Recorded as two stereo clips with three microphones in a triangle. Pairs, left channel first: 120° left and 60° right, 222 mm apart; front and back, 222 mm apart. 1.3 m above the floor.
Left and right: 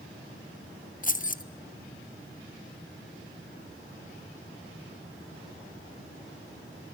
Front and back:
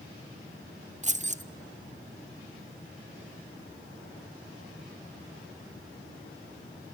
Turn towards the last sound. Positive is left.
turn(degrees=145)